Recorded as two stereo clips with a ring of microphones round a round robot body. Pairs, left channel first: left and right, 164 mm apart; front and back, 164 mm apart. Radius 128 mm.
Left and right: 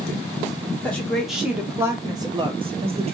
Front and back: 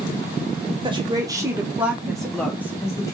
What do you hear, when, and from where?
0.8 s a woman speaking: 165° left, 1.0 m; by 3.1 s 60° right, 1.2 m